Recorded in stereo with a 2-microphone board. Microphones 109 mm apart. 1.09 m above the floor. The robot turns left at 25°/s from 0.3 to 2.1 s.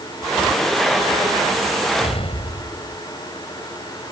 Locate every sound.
2.0 s an explosion: 70° left (ahead or behind); by 3.0 s 65° left (ahead or behind)